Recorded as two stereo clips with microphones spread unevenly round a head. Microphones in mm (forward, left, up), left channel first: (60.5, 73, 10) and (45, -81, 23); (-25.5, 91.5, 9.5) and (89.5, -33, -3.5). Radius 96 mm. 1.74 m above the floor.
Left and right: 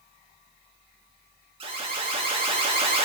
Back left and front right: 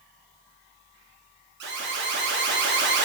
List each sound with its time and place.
1.6 s an alarm: 50° right, 1.9 m